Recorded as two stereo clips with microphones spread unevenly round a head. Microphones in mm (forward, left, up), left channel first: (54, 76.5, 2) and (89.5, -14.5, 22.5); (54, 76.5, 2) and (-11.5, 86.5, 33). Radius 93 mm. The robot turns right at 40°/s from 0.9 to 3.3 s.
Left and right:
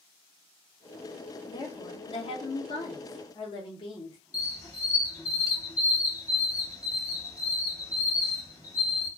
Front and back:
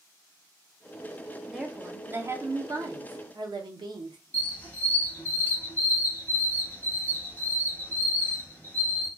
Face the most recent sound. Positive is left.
turn(degrees=80)